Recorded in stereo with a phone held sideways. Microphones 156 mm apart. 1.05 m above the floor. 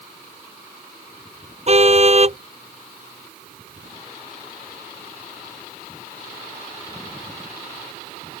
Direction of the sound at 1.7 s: 40° right (ahead or behind).